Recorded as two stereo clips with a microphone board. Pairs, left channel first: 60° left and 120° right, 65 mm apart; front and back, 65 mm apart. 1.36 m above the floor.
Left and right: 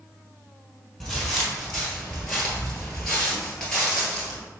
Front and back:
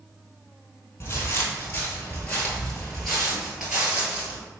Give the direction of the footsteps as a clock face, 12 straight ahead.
1 o'clock.